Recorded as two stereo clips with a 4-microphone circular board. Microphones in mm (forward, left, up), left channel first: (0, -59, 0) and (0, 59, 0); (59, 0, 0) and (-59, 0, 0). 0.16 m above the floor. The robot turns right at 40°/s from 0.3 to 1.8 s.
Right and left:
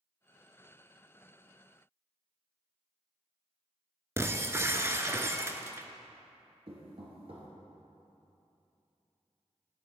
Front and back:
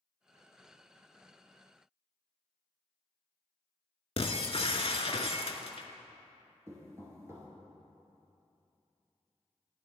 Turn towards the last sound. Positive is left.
turn(degrees=115)